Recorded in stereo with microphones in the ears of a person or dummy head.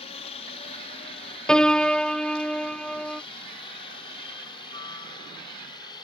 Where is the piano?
10° left (ahead or behind).